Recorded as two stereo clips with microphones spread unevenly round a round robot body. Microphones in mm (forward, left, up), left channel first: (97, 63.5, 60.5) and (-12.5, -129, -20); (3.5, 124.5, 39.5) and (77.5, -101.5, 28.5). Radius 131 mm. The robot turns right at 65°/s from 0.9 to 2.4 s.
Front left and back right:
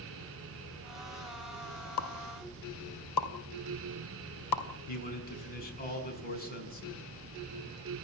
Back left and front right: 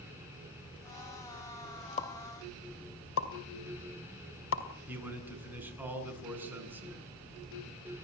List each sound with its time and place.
2.0 s a pop: 45° left, 2.5 m; by 4.6 s 75° left, 2.5 m
4.9 s a man speaking: 10° left, 6.5 m